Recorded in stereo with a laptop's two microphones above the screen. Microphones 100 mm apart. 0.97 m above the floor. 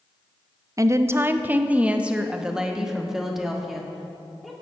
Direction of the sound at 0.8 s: 35° right (ahead or behind).